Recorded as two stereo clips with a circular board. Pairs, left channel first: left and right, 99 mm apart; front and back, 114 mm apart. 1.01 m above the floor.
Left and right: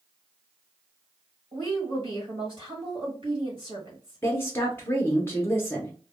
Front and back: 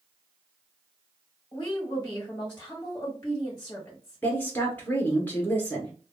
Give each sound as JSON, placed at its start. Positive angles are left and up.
{"t": 1.5, "sound": "a woman speaking", "azimuth_deg": -65, "distance_m": 1.5}
{"t": 4.2, "sound": "a woman speaking", "azimuth_deg": 55, "distance_m": 0.8}